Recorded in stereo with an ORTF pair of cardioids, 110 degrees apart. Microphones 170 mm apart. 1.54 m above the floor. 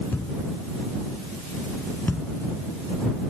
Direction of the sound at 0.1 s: 15° left.